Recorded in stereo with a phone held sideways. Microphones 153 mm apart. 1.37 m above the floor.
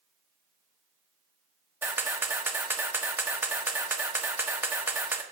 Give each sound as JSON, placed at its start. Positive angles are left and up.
{"t": 1.8, "sound": "a camera shutter", "side_deg": -15, "distance_m": 1.0}